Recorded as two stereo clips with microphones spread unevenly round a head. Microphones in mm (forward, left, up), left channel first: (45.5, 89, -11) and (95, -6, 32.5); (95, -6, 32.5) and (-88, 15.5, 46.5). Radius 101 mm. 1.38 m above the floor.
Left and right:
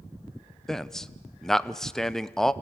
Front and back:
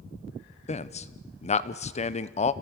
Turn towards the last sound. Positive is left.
turn(degrees=45)